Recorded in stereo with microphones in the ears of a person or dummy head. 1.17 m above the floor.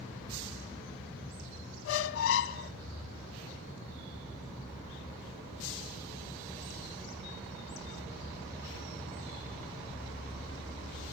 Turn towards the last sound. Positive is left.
turn(degrees=80)